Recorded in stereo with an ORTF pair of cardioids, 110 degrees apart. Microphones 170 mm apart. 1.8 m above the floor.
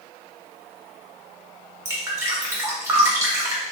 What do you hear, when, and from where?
1.9 s dripping: 15° right, 1.6 m